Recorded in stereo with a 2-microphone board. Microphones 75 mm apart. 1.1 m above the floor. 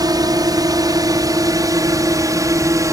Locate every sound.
0.0 s a drone: 60° right (ahead or behind); by 2.9 s 50° right (ahead or behind)